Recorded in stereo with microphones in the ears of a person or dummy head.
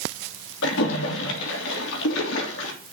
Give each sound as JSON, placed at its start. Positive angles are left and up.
{"t": 0.6, "sound": "a splash", "side_deg": 70, "distance_m": 3.5}